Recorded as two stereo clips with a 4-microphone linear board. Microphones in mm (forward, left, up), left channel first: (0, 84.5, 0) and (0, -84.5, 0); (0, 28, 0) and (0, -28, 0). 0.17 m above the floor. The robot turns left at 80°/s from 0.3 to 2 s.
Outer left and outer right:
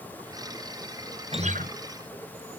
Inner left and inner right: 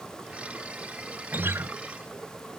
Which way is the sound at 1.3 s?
35° right (ahead or behind).